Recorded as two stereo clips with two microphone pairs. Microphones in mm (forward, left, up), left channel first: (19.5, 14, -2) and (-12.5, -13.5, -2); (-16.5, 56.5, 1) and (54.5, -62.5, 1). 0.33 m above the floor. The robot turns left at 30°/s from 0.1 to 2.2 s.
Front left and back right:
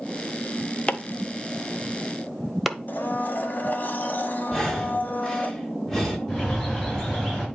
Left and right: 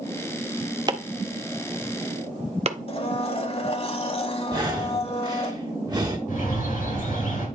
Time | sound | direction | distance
0.9 | chopping | 10° right | 0.8 m
2.9 | a blender | 75° left | 1.1 m
4.5 | breathing | 30° right | 1.7 m
6.3 | a bird | 110° left | 4 m